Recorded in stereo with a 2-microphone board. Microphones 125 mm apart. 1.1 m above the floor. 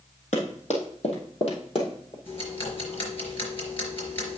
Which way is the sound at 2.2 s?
50° left (ahead or behind).